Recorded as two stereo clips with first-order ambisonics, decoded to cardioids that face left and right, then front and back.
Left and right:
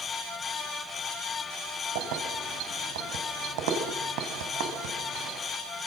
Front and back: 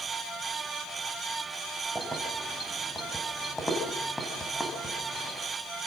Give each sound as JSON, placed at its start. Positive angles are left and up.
{"t": 1.9, "sound": "keys jangling", "azimuth_deg": -95, "distance_m": 5.0}